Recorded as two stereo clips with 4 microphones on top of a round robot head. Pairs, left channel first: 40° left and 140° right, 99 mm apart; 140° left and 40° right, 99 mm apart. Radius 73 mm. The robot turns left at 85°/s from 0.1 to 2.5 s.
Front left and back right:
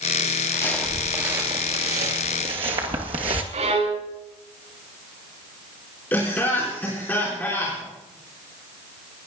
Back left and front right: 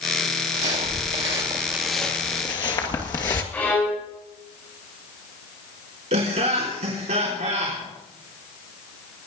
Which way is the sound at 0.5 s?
15° right.